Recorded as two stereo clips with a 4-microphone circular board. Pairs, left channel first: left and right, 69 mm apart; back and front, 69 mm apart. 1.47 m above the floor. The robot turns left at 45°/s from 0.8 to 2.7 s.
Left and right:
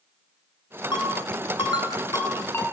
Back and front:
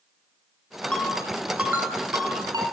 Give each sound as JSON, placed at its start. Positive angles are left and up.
{"t": 0.9, "sound": "a ringtone", "azimuth_deg": 105, "distance_m": 8.5}